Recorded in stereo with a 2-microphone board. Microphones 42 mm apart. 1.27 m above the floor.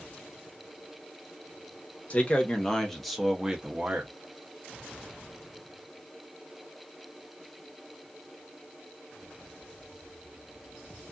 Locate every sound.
2.1 s a man speaking: 35° left (ahead or behind), 0.9 m; by 4.1 s 30° right (ahead or behind), 0.9 m